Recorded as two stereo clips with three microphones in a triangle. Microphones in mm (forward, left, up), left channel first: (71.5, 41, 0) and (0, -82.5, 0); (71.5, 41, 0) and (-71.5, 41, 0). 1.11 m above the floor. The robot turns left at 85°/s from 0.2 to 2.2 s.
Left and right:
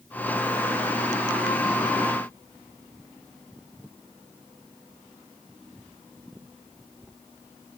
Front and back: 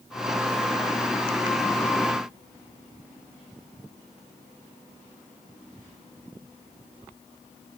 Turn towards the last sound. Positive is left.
No sound to turn to.